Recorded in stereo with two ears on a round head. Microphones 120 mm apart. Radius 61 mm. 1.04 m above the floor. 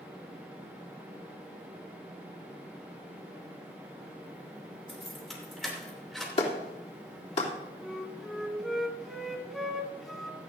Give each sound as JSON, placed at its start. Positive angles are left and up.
{"t": 4.9, "sound": "keys jangling", "side_deg": 0, "distance_m": 2.5}
{"t": 6.4, "sound": "a clap", "side_deg": 50, "distance_m": 2.5}
{"t": 7.8, "sound": "a flute", "side_deg": 0, "distance_m": 1.4}